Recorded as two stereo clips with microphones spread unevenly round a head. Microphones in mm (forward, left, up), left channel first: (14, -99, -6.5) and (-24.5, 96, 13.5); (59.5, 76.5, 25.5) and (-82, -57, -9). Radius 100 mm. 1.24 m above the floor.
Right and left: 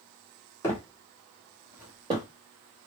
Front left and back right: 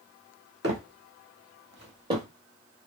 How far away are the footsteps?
About 1.7 m.